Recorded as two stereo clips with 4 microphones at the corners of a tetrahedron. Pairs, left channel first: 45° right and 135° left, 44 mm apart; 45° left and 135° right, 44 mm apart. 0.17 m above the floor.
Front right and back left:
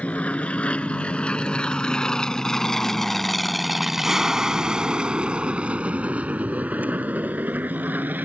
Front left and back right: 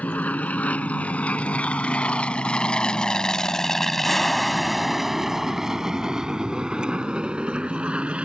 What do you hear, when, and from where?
0.0 s an aircraft: 5° left; by 8.3 s 170° left